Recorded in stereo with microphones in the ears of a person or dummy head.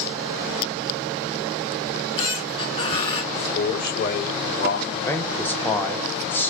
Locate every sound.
1.9 s a squeak: 30° left (ahead or behind), 2.5 m
3.3 s a man speaking: 60° left (ahead or behind), 3.5 m
4.9 s a man speaking: 10° left (ahead or behind), 0.8 m